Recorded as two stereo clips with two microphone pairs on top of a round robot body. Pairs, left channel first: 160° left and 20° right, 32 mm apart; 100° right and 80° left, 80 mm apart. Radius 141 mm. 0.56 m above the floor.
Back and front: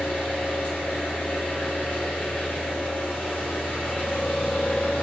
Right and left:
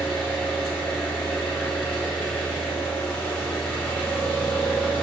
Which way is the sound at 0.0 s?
Straight behind.